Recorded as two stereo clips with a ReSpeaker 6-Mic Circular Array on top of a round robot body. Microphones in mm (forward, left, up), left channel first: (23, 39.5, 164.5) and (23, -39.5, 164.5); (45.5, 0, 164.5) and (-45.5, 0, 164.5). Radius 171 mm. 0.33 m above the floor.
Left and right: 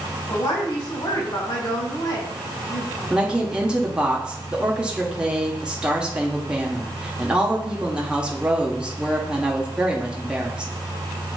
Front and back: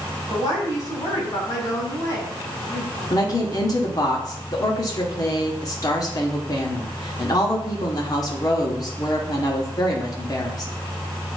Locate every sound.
0.3 s a woman speaking: 55° left, 3 m
3.1 s a woman speaking: 15° right, 1.5 m